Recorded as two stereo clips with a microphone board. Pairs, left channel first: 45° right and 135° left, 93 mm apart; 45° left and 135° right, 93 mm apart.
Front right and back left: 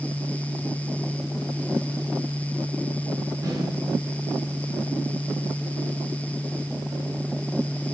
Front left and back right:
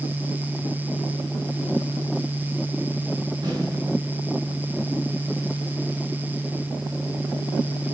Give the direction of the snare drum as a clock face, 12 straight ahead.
6 o'clock.